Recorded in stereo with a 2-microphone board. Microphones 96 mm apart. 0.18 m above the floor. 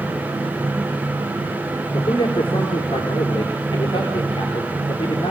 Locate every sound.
1.9 s a man speaking: 55° left (ahead or behind), 4 m